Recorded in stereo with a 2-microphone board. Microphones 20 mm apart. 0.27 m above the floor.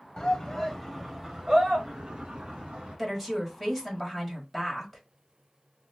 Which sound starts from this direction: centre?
A woman speaking, at 3.0 s.